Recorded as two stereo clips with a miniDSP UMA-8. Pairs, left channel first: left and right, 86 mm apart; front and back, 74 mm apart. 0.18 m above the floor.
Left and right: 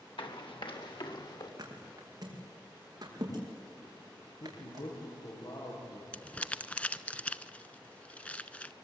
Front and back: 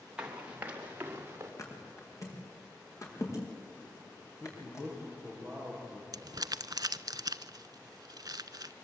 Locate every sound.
0.2 s running footsteps: 105° left, 5 m; by 1.5 s 120° left, 5 m
1.6 s a thud: 45° right, 6 m
4.4 s a man speaking: 80° left, 7.5 m
6.1 s crumpling: 165° left, 0.6 m